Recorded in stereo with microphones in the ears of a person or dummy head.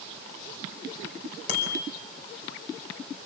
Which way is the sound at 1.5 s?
50° left (ahead or behind).